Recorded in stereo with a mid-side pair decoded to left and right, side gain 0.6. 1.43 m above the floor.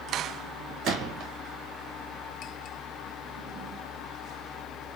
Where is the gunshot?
55° right, 1.5 m.